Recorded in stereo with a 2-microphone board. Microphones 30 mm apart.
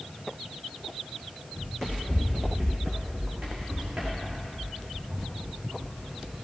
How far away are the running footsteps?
About 4.5 m.